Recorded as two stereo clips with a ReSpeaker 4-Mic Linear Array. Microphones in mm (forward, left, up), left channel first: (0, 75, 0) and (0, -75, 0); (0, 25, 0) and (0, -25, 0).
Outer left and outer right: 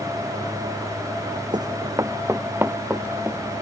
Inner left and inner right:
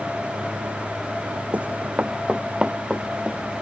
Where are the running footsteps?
35° right (ahead or behind); by 3.6 s 10° right (ahead or behind).